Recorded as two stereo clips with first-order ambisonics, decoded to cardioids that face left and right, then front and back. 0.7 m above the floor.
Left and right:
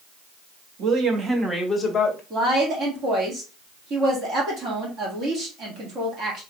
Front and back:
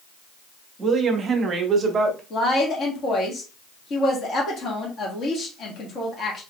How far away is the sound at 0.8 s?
About 0.9 m.